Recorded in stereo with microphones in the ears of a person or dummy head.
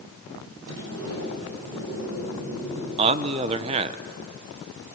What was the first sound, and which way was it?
A sliding door, 80° right.